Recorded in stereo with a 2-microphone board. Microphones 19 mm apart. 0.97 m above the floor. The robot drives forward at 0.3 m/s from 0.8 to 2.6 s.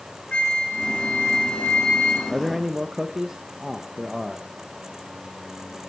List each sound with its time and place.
0.3 s a flute: 75° left (ahead or behind), 4 m; by 2.2 s 80° left, 4 m
2.3 s a man speaking: 30° right (ahead or behind), 1.0 m